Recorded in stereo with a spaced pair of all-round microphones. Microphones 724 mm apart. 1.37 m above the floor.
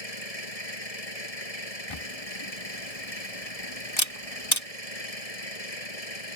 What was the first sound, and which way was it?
An engine running, 55° left (ahead or behind).